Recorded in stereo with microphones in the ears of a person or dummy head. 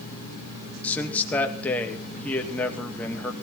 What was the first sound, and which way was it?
A man speaking, 10° left (ahead or behind).